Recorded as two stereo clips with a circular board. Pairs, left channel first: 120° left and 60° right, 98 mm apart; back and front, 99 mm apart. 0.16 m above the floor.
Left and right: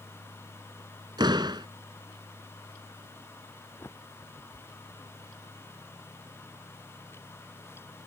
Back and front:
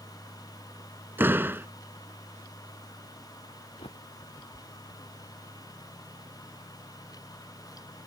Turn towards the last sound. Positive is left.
turn(degrees=-175)